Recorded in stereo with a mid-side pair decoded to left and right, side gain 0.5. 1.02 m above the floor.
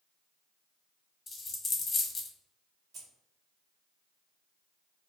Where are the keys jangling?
55° right, 1.1 m.